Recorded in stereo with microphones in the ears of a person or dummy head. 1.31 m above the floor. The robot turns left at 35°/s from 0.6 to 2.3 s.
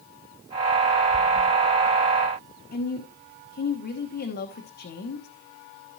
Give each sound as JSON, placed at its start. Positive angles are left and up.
{"t": 2.7, "sound": "a woman speaking", "side_deg": 45, "distance_m": 1.1}